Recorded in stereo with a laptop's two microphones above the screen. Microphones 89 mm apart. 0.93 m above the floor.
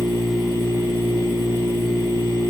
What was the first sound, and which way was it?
A machine running, 75° left (ahead or behind).